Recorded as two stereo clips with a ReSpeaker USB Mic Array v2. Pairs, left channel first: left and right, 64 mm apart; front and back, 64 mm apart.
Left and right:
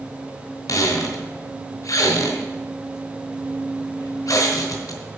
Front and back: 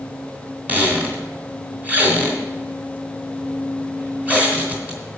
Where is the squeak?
115° left, 2 m.